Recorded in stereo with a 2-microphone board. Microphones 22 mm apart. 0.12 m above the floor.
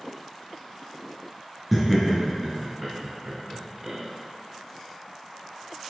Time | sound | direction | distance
1.7 | laughter | 5° right (ahead or behind) | 1.9 m